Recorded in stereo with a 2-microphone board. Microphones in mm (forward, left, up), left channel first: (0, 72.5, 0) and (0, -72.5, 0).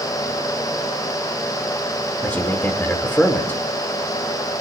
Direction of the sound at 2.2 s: 15° left (ahead or behind).